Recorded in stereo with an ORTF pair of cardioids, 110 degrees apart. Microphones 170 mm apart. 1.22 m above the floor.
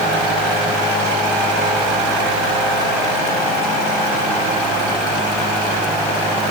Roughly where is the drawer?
No drawer in this recording.